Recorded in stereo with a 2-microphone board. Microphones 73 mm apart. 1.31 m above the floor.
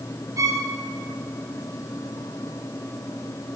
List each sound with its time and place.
0.4 s a violin: 50° right (ahead or behind), 0.7 m